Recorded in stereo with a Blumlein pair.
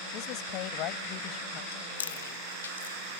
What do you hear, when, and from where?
0.1 s a woman speaking: 40° left
1.7 s chewing: 65° left